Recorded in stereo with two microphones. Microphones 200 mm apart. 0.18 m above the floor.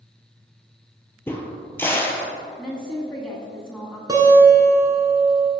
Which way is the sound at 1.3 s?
10° left (ahead or behind).